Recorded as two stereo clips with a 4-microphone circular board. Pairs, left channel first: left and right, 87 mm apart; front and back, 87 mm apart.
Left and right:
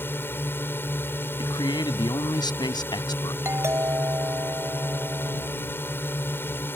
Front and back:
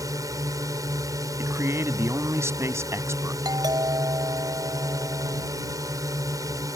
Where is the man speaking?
120° left.